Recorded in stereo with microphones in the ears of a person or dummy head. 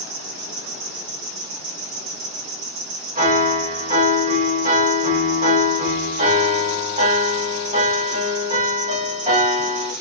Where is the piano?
35° right (ahead or behind), 1.7 m.